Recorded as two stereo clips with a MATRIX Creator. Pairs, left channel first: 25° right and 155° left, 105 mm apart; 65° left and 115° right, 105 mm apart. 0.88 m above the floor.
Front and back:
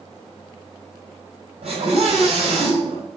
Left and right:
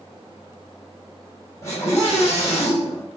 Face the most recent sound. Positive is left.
turn(degrees=130)